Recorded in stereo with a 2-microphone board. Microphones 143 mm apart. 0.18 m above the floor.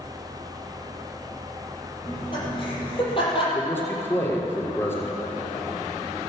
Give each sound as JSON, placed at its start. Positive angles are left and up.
{"t": 2.0, "sound": "laughter", "side_deg": 35, "distance_m": 6.0}
{"t": 3.5, "sound": "a man speaking", "side_deg": 15, "distance_m": 3.0}